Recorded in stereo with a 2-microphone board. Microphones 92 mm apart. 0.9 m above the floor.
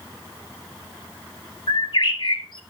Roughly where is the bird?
Left.